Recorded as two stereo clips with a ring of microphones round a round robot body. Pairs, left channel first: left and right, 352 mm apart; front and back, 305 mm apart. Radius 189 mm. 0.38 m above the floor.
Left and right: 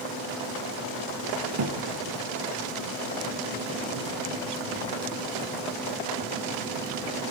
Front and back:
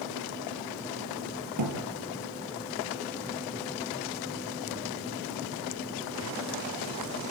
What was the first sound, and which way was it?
A thud, 135° right.